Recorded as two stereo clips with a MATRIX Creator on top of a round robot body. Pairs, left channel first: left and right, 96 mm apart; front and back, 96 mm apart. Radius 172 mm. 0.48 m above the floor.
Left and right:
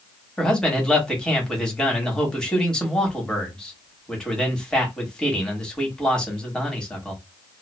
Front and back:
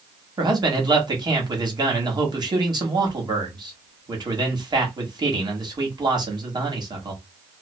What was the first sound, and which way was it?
A man speaking, 170° left.